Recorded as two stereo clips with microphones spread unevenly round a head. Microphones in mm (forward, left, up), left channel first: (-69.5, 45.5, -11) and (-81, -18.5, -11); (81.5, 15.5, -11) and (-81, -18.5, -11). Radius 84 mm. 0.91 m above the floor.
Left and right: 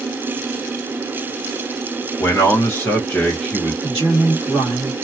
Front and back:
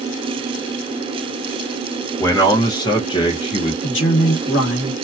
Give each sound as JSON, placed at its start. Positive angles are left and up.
{"t": 2.2, "sound": "a man speaking", "azimuth_deg": 75, "distance_m": 1.2}
{"t": 3.8, "sound": "a man speaking", "azimuth_deg": 25, "distance_m": 1.3}